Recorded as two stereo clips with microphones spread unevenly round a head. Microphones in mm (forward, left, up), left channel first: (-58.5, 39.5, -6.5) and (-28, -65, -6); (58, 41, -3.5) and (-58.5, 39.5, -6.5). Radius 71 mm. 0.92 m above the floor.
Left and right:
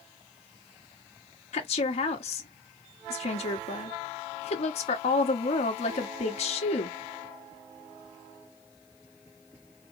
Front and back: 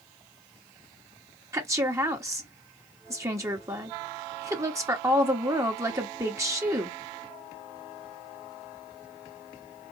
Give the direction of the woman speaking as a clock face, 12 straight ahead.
8 o'clock.